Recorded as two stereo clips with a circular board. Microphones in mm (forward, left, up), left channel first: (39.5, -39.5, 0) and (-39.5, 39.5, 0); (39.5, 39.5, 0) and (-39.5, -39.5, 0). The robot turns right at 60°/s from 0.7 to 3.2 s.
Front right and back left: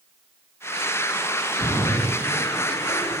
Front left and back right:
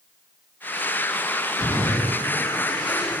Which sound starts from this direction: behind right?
A splash, at 1.6 s.